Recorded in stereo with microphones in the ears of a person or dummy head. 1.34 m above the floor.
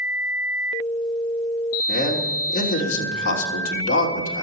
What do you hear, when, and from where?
1.9 s a man speaking: 55° left (ahead or behind), 3 m